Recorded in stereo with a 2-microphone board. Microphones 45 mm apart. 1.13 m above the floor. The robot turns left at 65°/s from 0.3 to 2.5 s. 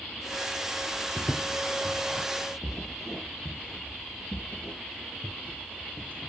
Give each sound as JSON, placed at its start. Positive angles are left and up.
{"t": 1.2, "sound": "footsteps", "side_deg": 15, "distance_m": 1.3}